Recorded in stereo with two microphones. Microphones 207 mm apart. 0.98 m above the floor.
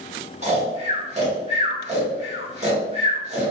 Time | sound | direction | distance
0.4 | snoring | 30° right (ahead or behind) | 1.0 m